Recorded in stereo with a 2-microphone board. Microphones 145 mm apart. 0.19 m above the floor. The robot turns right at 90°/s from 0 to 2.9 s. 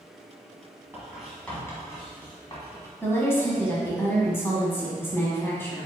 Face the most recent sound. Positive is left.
turn(degrees=15)  # may be behind; listen again after turning